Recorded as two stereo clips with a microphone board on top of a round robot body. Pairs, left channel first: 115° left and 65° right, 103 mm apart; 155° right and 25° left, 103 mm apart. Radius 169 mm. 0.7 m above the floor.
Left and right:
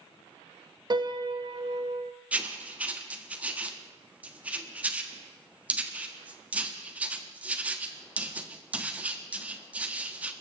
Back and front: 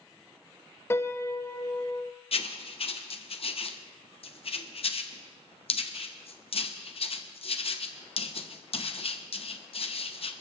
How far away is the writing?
About 1.4 m.